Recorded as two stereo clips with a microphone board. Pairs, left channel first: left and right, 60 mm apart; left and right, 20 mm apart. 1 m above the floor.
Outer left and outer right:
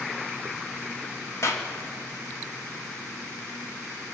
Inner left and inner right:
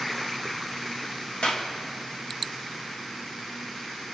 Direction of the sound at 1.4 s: 55° left (ahead or behind).